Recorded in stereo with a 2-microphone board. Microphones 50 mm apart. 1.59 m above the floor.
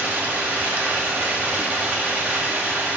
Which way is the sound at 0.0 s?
40° right (ahead or behind).